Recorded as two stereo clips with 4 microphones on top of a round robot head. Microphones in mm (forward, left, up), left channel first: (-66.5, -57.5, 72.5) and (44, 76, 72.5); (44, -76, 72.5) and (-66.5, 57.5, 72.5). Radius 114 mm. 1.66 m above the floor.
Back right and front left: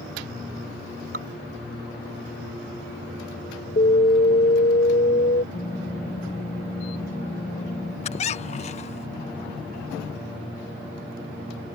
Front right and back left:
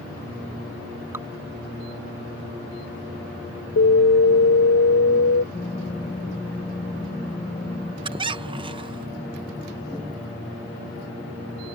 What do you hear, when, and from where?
1.1 s dripping: 55° left
3.8 s an alarm: 75° right
5.5 s typing on a keyboard: 95° right
8.0 s a squeak: 175° right